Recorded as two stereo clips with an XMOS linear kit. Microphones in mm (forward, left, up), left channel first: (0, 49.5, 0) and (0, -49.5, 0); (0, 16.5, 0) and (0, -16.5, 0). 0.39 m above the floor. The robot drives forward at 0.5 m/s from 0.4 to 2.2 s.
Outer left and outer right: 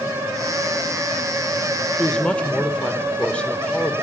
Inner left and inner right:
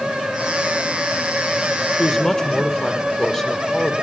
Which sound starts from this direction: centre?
A woman speaking, at 2.0 s.